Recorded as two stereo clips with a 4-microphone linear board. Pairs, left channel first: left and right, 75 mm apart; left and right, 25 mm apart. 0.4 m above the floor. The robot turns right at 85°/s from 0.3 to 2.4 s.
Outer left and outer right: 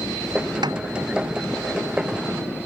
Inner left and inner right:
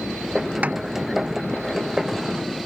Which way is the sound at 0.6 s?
80° right.